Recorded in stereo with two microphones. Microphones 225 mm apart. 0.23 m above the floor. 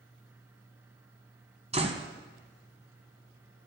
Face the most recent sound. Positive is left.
turn(degrees=-30)  # may be behind; listen again after turning